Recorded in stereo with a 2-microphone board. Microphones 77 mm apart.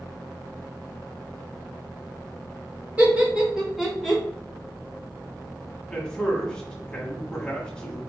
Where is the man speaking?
10° left (ahead or behind), 1.1 m.